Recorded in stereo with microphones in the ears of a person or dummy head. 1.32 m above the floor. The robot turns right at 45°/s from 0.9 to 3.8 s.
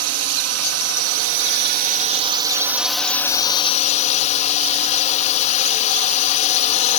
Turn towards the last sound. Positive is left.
turn(degrees=35)